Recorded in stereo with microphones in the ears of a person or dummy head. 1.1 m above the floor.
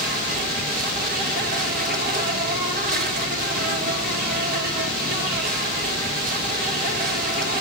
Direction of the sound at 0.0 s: 40° right (ahead or behind).